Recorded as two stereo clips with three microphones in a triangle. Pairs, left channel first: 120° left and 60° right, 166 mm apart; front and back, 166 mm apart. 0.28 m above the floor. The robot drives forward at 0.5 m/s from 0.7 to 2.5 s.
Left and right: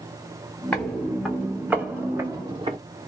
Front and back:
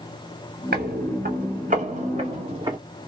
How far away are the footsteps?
About 1.3 m.